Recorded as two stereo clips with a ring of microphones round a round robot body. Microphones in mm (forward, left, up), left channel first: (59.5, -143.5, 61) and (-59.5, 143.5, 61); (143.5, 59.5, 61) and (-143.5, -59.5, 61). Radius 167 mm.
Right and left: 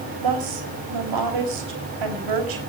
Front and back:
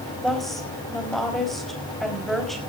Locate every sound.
0.2 s a woman speaking: 110° left, 4 m